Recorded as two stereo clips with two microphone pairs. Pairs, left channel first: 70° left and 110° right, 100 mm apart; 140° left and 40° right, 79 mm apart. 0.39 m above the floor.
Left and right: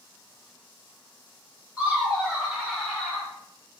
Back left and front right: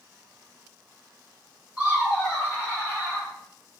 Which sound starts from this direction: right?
Laughter, at 1.8 s.